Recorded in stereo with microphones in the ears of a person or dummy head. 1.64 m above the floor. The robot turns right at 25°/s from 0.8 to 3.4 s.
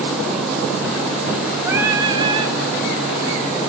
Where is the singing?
15° right (ahead or behind), 1.9 m; by 2.5 s 35° right (ahead or behind), 1.9 m.